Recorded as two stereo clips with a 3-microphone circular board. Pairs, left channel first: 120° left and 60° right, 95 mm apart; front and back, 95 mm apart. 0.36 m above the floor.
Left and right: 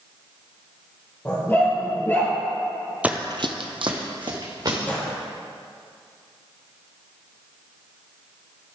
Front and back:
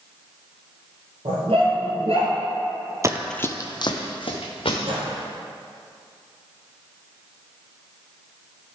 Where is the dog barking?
170° right, 2.5 m; by 2.3 s 175° right, 1.9 m.